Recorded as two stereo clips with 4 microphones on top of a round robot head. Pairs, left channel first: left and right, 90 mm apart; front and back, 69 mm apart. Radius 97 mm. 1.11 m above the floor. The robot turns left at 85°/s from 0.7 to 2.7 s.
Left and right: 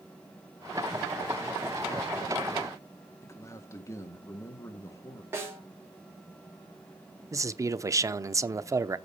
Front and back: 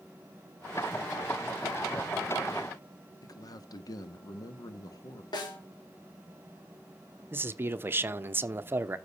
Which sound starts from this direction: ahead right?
A snare drum, at 5.3 s.